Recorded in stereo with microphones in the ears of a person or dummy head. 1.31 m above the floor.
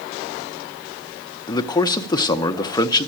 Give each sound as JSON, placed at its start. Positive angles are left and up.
{"t": 1.5, "sound": "a man speaking", "side_deg": 20, "distance_m": 0.7}